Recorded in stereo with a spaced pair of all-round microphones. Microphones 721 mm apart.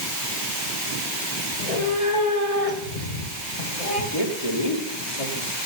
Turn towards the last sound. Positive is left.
turn(degrees=55)  # may be behind; listen again after turning